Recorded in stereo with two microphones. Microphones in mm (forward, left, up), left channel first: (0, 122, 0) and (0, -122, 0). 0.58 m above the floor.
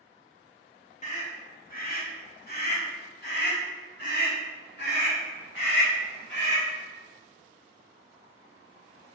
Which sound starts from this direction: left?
A scream, at 1.0 s.